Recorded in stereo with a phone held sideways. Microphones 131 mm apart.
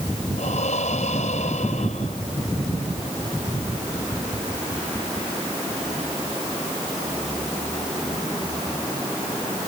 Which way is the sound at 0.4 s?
65° left (ahead or behind).